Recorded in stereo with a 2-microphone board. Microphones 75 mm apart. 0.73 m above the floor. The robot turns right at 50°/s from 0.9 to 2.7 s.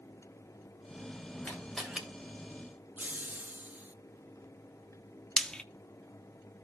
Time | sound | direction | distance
1.4 | a camera shutter | 15° left (ahead or behind) | 2.5 m
3.0 | laughter | 25° right (ahead or behind) | 0.8 m
5.4 | frying | 10° left (ahead or behind) | 0.6 m